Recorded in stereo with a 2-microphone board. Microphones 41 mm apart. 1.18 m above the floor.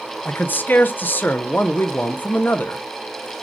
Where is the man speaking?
50° left (ahead or behind), 0.5 m.